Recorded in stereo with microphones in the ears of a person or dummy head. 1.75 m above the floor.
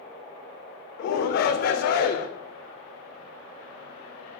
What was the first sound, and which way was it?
A shout, 55° left (ahead or behind).